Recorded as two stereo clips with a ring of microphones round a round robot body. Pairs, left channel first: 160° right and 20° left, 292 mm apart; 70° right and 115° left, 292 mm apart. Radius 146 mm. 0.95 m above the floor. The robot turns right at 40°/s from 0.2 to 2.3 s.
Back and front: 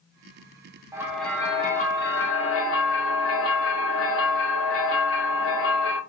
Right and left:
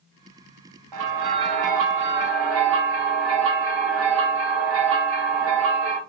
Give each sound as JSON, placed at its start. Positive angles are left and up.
{"t": 0.9, "sound": "a bell", "azimuth_deg": 100, "distance_m": 0.7}